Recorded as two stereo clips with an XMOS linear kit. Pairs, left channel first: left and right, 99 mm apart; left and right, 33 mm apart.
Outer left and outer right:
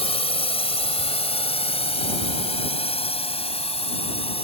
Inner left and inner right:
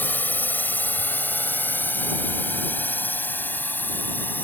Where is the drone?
75° left (ahead or behind).